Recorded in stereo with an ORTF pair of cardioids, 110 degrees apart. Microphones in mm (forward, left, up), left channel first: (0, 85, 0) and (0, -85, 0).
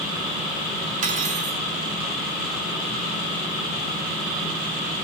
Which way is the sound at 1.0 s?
50° right.